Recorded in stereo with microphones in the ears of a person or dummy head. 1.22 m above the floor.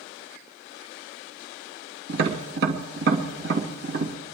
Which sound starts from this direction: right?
Tapping, at 2.1 s.